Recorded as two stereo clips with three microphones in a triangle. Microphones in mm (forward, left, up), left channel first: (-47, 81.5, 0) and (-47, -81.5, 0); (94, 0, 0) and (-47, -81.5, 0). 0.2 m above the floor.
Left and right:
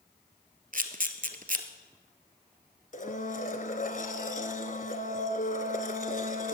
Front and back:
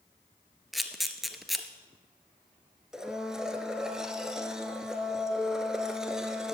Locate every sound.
0.7 s a camera shutter: 60° right, 1.1 m
2.9 s a blender: 125° left, 1.2 m